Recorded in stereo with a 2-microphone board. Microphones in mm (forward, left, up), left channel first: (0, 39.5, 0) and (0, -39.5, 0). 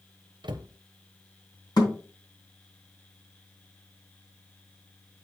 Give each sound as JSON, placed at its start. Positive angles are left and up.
{"t": 0.4, "sound": "a cupboard door", "side_deg": -90, "distance_m": 0.7}
{"t": 1.8, "sound": "a thud", "side_deg": 65, "distance_m": 2.5}